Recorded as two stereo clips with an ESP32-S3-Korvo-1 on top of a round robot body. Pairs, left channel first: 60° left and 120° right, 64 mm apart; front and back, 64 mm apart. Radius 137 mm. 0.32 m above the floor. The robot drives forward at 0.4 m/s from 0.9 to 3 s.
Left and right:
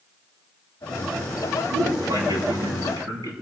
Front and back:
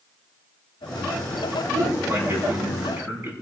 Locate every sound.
1.7 s a man speaking: 120° right, 9.5 m; by 3.3 s 125° right, 10 m